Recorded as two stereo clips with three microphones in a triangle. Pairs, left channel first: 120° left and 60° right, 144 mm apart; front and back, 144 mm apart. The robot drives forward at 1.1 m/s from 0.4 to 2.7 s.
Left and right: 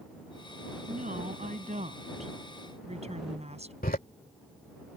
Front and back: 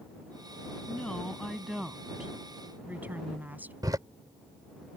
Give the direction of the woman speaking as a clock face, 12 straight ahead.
3 o'clock.